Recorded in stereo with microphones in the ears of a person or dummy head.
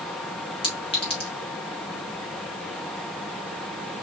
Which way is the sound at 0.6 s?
35° left (ahead or behind).